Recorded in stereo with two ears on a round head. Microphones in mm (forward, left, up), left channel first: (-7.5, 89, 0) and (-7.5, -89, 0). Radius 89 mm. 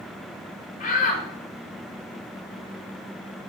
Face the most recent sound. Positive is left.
turn(degrees=40)  # may be behind; listen again after turning